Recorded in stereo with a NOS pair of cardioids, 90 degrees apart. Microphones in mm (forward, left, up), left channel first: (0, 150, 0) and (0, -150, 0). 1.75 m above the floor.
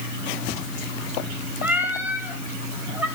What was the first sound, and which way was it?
A cat meowing, 5° right.